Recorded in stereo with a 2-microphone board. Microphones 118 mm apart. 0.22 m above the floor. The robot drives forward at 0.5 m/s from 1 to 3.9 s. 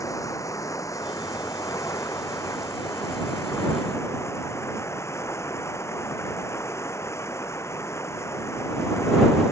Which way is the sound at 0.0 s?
30° left (ahead or behind).